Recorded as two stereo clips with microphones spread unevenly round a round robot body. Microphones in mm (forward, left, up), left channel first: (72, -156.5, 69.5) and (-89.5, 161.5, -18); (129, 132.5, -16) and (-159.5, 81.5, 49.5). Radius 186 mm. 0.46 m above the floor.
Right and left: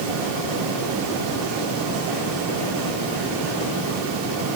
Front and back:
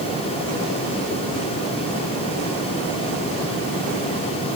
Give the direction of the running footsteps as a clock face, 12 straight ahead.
No running footsteps in this recording.